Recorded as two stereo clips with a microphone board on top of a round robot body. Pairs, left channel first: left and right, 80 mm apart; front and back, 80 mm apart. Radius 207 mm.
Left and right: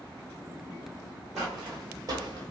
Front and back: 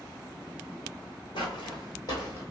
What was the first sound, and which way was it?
Footsteps, straight ahead.